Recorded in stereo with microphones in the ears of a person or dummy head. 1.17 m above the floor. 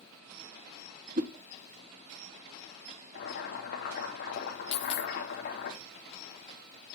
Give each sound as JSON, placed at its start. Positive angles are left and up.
{"t": 1.2, "sound": "a whoosh", "side_deg": -45, "distance_m": 0.9}
{"t": 3.1, "sound": "boiling", "side_deg": 55, "distance_m": 2.5}
{"t": 4.7, "sound": "a dropped coin", "side_deg": 40, "distance_m": 0.6}